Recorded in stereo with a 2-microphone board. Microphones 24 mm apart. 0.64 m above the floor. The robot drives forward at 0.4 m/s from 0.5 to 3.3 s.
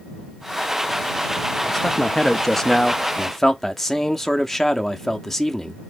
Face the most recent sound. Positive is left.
turn(degrees=10)  # may be behind; listen again after turning